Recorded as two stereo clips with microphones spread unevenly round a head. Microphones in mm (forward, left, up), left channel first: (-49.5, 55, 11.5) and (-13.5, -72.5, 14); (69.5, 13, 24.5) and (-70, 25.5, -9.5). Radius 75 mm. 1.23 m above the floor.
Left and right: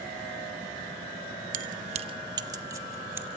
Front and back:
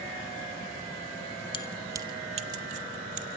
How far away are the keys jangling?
About 0.5 m.